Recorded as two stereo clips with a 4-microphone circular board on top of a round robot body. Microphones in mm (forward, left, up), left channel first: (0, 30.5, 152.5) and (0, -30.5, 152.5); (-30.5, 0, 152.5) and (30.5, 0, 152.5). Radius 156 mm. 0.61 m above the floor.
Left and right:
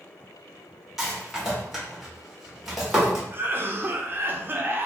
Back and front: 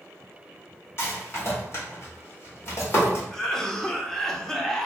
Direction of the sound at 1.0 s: 175° right.